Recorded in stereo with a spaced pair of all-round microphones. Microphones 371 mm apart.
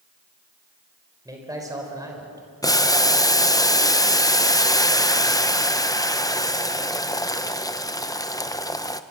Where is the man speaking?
10° right (ahead or behind), 4.5 m.